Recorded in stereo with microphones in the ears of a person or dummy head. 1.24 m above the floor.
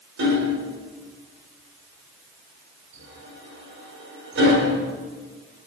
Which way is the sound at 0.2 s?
70° right (ahead or behind).